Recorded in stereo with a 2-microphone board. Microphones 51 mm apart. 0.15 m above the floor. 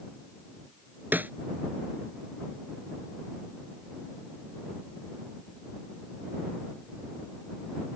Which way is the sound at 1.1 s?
40° right (ahead or behind).